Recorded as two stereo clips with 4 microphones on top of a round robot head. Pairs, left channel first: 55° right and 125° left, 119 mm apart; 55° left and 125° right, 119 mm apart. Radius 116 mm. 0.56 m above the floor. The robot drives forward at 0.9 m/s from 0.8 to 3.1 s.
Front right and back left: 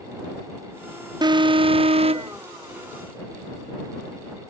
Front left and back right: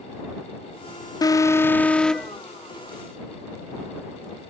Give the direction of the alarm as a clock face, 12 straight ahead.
9 o'clock.